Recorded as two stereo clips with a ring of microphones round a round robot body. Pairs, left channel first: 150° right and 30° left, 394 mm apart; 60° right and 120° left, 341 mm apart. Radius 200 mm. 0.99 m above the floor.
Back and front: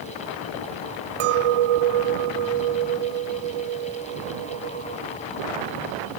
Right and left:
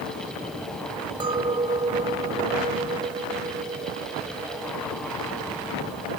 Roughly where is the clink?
Ahead left.